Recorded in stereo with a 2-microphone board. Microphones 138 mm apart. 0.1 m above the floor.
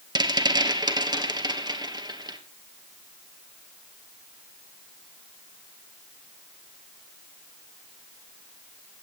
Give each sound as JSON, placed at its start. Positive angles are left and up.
{"t": 0.1, "sound": "a rattle", "side_deg": -30, "distance_m": 2.5}